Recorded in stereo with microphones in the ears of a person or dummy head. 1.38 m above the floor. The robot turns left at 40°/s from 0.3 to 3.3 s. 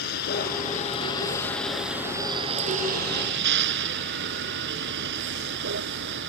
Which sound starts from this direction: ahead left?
A vehicle, at 0.0 s.